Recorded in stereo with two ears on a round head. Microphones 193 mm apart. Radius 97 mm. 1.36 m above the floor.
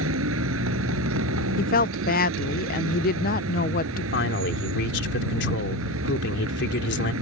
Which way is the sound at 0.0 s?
70° right (ahead or behind).